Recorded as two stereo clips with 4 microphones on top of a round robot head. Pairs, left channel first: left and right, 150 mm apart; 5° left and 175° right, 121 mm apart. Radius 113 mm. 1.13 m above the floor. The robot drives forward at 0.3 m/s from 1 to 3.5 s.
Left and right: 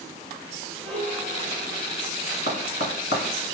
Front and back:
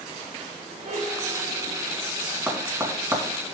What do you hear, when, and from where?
0.8 s a piano: 175° left, 2.5 m; by 2.0 s straight behind, 3 m
2.5 s tapping: 110° left, 2 m; by 3.2 s 120° left, 2.5 m